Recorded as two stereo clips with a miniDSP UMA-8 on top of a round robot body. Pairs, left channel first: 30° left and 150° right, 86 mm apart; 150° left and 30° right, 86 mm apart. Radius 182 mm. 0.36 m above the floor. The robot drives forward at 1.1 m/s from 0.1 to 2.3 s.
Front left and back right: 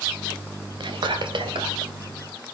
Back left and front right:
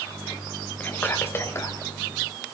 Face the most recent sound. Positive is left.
turn(degrees=-160)